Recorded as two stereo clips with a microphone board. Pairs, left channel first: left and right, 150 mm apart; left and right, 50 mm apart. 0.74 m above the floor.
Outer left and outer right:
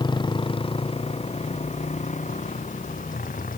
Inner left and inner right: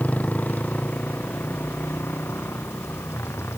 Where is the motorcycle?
30° left (ahead or behind); by 3.6 s 65° left (ahead or behind).